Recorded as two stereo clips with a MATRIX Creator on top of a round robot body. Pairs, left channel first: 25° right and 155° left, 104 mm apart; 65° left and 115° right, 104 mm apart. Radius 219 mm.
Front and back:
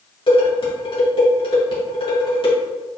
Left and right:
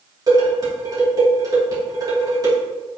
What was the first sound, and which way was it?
Dishes clattering, 60° right.